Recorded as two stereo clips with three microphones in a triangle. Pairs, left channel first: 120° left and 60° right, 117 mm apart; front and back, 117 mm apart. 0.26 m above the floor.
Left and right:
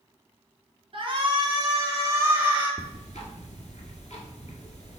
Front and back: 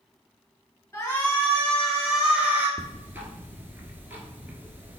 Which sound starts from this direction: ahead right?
A shout, at 0.9 s.